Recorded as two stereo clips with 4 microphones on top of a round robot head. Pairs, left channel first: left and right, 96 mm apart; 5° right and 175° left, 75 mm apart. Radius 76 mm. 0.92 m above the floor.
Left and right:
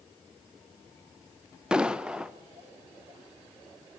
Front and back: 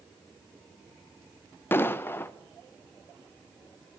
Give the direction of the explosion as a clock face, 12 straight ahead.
1 o'clock.